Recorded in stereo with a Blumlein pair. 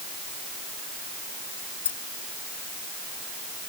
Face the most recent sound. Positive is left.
turn(degrees=65)